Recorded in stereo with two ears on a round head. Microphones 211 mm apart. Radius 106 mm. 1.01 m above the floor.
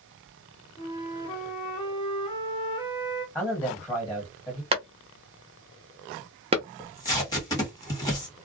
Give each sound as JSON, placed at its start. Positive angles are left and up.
{"t": 0.8, "sound": "a flute", "side_deg": 20, "distance_m": 0.8}
{"t": 3.4, "sound": "a man speaking", "side_deg": 10, "distance_m": 1.3}
{"t": 4.7, "sound": "a clap", "side_deg": -25, "distance_m": 0.7}
{"t": 6.8, "sound": "tape being pulled", "side_deg": 15, "distance_m": 1.4}